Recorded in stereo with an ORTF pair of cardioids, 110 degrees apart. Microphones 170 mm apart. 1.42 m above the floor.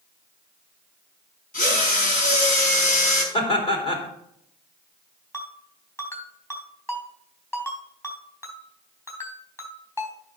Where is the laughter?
35° left, 3 m.